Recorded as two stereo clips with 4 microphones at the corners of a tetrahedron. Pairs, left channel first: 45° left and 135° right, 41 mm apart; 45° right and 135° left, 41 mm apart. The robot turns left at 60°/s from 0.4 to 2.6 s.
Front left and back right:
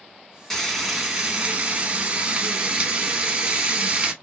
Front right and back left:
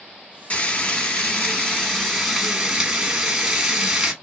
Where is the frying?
30° right, 1.1 m; by 4.1 s 155° right, 1.1 m.